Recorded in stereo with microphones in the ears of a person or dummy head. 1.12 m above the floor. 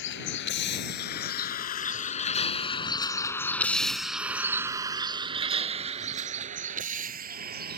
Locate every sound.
0.0 s a vehicle: 65° left (ahead or behind); by 7.8 s 50° right (ahead or behind)